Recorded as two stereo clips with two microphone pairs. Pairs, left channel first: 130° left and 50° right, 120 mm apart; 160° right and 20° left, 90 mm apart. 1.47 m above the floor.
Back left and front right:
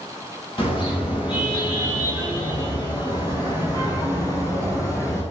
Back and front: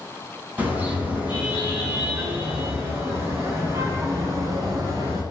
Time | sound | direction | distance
0.6 | a car horn | 90° left | 8.5 m